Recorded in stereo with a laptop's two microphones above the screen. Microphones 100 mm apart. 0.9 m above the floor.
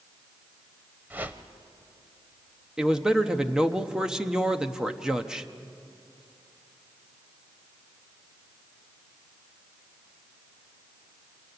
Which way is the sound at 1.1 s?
20° right (ahead or behind).